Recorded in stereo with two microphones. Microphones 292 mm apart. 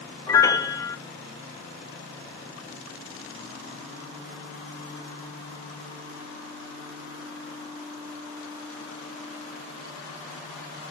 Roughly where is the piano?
Centre.